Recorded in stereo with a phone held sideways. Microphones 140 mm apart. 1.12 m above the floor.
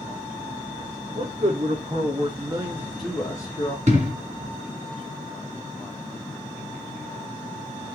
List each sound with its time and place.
1.1 s a man speaking: 65° right (ahead or behind), 1.6 m; by 3.8 s 40° left (ahead or behind), 0.9 m
3.9 s an explosion: 55° right (ahead or behind), 1.8 m